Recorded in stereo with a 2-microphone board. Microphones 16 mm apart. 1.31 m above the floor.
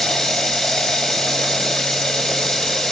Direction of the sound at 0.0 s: 40° left (ahead or behind).